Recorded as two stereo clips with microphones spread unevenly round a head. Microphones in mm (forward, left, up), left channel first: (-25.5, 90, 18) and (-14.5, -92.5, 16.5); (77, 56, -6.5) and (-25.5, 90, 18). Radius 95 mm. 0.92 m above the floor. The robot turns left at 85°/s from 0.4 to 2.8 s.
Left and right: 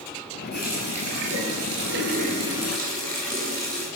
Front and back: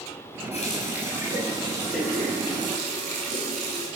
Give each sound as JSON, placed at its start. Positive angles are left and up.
{"t": 0.5, "sound": "a running tap", "azimuth_deg": 15, "distance_m": 4.5}